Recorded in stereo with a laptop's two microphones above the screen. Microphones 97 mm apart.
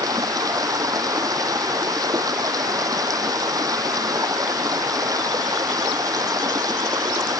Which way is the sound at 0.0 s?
35° right (ahead or behind).